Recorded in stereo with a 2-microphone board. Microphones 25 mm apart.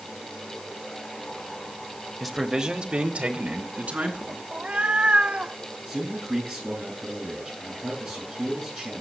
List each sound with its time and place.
2.2 s a man speaking: 5° left (ahead or behind), 0.9 m; by 4.4 s 60° right (ahead or behind), 3.5 m
4.5 s a cat meowing: 50° right (ahead or behind), 0.8 m
5.9 s a man speaking: 10° right (ahead or behind), 8 m